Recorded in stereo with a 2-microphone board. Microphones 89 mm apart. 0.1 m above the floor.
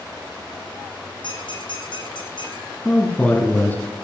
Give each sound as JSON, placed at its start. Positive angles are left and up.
{"t": 1.2, "sound": "a squeak", "side_deg": 60, "distance_m": 2.0}
{"t": 2.9, "sound": "a man speaking", "side_deg": 15, "distance_m": 1.5}